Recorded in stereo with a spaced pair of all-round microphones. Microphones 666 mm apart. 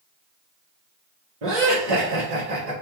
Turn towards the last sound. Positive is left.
turn(degrees=-55)  # may be behind; listen again after turning